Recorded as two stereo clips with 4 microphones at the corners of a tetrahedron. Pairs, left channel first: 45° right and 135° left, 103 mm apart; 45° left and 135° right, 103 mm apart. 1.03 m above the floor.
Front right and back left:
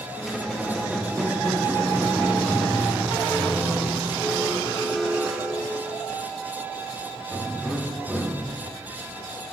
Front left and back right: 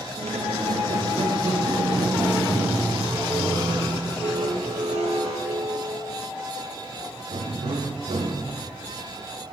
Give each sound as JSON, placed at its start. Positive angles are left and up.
{"t": 0.2, "sound": "a squeak", "azimuth_deg": -140, "distance_m": 0.8}